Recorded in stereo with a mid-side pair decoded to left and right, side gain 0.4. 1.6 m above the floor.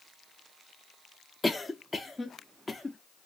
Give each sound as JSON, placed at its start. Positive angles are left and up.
{"t": 1.4, "sound": "a cough", "azimuth_deg": 15, "distance_m": 0.6}